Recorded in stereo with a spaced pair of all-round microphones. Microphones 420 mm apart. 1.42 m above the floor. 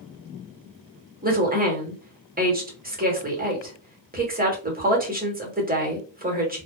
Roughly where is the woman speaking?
Centre.